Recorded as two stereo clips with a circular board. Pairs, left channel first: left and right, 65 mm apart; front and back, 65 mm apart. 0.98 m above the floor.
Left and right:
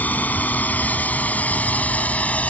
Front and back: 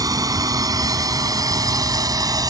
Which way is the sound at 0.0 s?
155° left.